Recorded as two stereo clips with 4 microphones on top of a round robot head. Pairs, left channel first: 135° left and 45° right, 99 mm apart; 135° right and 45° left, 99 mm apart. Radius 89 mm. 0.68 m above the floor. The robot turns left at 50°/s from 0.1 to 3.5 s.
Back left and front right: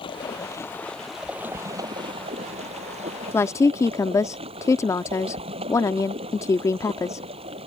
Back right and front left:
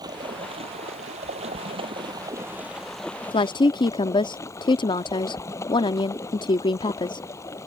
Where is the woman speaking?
155° right; by 7.3 s 165° right.